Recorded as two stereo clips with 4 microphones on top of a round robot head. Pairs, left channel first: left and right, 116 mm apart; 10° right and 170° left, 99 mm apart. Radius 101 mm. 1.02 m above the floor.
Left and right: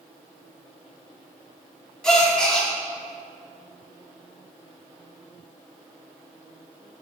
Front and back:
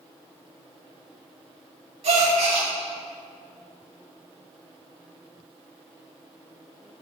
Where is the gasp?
175° left, 2 m.